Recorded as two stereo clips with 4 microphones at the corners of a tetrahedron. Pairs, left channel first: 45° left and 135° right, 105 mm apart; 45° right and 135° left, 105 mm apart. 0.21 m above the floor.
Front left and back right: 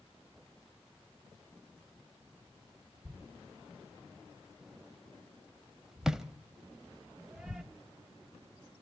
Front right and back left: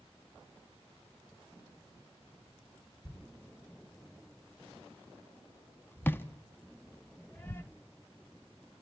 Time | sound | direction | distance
3.0 | a thud | 55° right | 0.5 m